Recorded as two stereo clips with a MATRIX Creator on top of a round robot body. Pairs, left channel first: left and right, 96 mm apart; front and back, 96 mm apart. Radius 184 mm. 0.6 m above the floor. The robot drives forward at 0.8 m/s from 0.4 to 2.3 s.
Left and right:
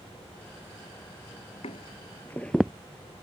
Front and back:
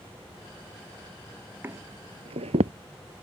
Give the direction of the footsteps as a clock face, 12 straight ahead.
8 o'clock.